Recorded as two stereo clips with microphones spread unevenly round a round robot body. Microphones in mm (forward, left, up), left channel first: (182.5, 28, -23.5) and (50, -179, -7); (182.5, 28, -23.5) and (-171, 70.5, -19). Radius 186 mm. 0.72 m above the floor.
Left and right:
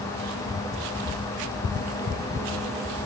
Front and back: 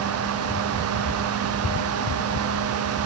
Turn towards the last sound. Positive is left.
No sound to turn to.